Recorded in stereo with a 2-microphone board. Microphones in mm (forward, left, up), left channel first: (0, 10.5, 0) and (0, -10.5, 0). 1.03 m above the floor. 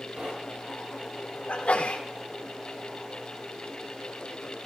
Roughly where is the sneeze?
Left.